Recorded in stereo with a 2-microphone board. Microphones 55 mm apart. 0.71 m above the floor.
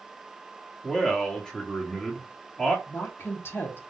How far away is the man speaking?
About 1.5 m.